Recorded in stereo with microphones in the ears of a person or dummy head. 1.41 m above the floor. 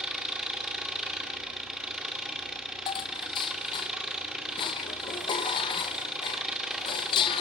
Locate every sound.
0.0 s an engine running: 5° right (ahead or behind), 2.5 m
2.9 s dishes clattering: 30° left (ahead or behind), 0.9 m